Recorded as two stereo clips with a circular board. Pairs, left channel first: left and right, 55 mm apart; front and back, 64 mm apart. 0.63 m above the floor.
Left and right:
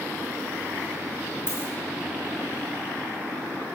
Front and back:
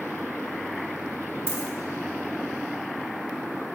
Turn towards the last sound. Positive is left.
turn(degrees=130)